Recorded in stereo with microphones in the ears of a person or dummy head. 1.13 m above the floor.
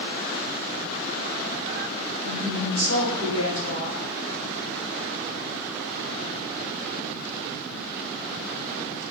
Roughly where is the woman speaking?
Left.